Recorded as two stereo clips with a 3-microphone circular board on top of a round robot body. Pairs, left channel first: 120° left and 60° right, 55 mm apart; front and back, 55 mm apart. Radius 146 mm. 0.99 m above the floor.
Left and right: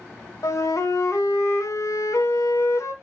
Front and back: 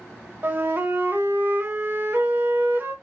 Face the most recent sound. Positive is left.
turn(degrees=135)